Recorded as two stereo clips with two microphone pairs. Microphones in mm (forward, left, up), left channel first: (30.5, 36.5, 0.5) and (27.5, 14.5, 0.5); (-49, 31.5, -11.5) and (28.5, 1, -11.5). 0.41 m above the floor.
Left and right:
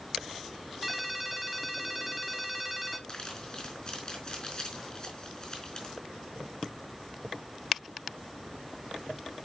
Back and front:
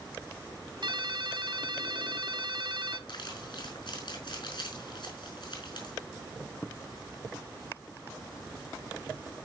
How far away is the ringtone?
About 1.3 m.